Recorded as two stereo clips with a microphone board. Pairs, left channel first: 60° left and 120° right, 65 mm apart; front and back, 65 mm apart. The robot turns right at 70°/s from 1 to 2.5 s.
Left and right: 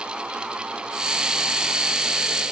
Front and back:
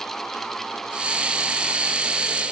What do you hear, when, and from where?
Only background noise.